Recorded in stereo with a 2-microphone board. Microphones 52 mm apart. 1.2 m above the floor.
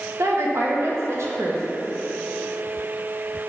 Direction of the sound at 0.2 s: 70° right (ahead or behind).